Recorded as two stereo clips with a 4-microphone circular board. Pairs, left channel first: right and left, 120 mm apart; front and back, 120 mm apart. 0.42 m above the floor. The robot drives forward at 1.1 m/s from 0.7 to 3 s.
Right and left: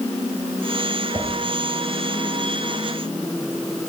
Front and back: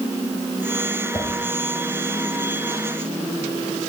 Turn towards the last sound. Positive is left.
turn(degrees=130)